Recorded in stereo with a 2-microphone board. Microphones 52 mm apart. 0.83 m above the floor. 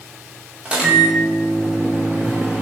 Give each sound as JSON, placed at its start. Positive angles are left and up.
{"t": 0.7, "sound": "a microwave", "side_deg": -20, "distance_m": 0.8}